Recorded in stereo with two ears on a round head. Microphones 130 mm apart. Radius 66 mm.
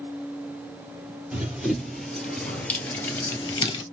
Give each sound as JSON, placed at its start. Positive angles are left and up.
{"t": 1.3, "sound": "running footsteps", "side_deg": -10, "distance_m": 2.0}